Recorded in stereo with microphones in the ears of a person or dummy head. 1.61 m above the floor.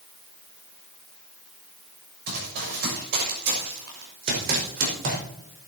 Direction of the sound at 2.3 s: 55° right (ahead or behind).